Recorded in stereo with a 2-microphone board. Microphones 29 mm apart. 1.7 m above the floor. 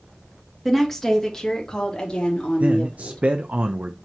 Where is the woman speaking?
5° left (ahead or behind), 2.5 m; by 3.2 s 45° left (ahead or behind), 5 m.